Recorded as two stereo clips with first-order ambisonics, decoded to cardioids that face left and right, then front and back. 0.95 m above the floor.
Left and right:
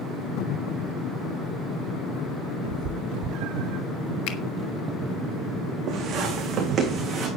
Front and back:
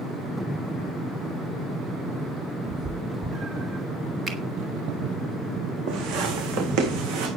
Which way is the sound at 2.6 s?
120° right.